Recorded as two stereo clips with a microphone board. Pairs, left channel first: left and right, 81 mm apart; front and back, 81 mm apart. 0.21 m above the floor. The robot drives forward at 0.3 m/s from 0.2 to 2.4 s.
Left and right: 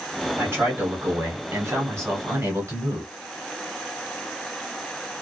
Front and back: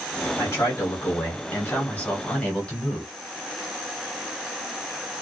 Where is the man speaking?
40° right, 1.5 m; by 3.1 s 70° right, 1.2 m.